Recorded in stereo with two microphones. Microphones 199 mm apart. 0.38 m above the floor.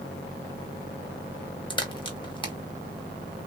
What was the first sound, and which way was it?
A crack, 25° left (ahead or behind).